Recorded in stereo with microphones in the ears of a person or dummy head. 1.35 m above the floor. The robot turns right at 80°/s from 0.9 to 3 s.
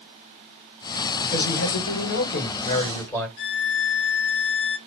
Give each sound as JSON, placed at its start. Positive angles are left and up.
{"t": 1.2, "sound": "a man speaking", "azimuth_deg": 30, "distance_m": 1.4}
{"t": 3.4, "sound": "a violin", "side_deg": 60, "distance_m": 0.9}